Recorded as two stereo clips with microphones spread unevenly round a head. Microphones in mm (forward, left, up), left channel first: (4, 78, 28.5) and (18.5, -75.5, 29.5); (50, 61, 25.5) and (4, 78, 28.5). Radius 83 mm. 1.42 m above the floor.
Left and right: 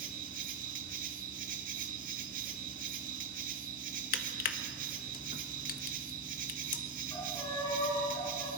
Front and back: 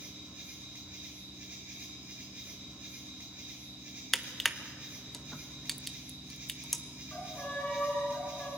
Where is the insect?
125° right, 1.7 m.